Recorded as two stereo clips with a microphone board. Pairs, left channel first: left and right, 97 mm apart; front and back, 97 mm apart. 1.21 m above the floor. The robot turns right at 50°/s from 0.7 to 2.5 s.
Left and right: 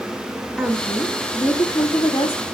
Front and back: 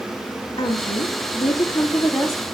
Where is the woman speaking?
5° left, 2.5 m; by 2.4 s 95° left, 2.5 m.